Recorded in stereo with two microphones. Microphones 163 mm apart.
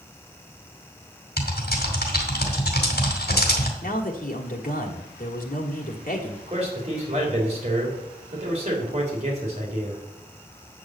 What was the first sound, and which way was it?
Typing on a keyboard, 75° left (ahead or behind).